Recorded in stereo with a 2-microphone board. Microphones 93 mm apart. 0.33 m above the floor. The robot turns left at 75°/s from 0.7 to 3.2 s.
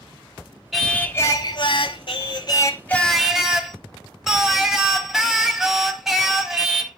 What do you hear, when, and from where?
0.7 s singing: straight behind, 0.9 m; by 7.0 s 5° right, 0.9 m